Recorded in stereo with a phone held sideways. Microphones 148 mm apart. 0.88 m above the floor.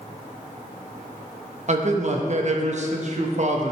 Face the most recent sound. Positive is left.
turn(degrees=-50)  # may be behind; listen again after turning